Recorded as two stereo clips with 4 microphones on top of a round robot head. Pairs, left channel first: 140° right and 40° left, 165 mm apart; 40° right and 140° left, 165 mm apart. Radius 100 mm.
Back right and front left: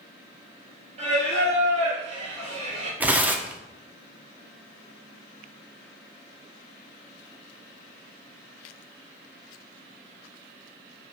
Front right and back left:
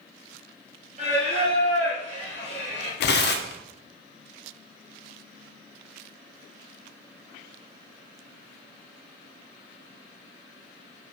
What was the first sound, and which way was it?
Singing, 90° left.